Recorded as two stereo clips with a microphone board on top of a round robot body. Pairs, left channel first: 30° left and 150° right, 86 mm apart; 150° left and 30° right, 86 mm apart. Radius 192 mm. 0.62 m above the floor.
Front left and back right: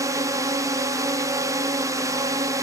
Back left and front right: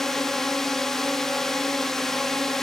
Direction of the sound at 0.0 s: 125° right.